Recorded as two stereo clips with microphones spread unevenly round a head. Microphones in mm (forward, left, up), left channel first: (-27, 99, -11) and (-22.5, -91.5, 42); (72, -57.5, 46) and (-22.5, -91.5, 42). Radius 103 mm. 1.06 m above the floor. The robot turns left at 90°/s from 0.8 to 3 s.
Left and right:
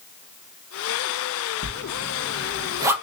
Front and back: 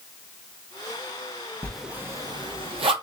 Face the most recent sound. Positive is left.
turn(degrees=180)